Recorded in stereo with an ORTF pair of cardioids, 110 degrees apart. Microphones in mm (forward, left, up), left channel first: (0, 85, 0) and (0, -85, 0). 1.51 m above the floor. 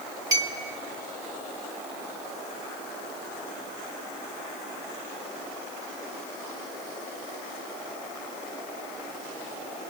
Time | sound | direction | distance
0.3 | a clink | 20° right | 1.6 m